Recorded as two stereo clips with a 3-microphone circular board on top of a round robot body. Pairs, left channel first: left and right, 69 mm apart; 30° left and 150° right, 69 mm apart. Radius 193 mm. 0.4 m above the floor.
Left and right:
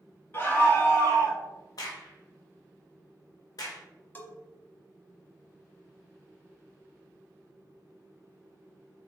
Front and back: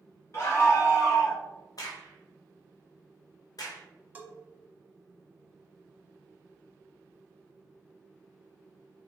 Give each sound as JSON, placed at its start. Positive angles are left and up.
{"t": 0.3, "sound": "a scream", "azimuth_deg": 50, "distance_m": 1.8}
{"t": 1.8, "sound": "a crack", "azimuth_deg": 60, "distance_m": 0.6}
{"t": 4.2, "sound": "a bell", "azimuth_deg": 145, "distance_m": 1.0}